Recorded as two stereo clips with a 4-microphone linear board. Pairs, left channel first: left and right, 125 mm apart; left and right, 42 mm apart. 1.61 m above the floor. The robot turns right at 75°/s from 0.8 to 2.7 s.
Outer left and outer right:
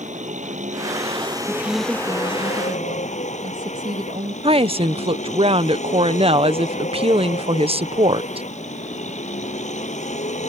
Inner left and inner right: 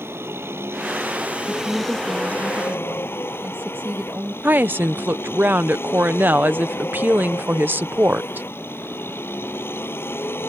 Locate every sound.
0.0 s a vehicle: 75° right; by 10.5 s 70° left
1.5 s a woman speaking: 155° left; by 4.3 s 115° right
4.4 s a woman speaking: 50° right (ahead or behind)